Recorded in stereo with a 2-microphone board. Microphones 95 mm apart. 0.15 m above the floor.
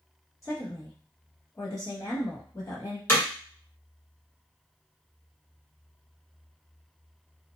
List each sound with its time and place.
0.4 s a woman speaking: 35° left (ahead or behind), 1.3 m
3.1 s hammering: 20° left (ahead or behind), 1.4 m